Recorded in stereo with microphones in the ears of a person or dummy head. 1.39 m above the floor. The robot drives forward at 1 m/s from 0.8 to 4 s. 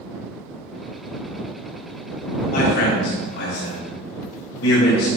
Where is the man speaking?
55° left (ahead or behind), 3 m; by 5.1 s 80° left, 2.5 m.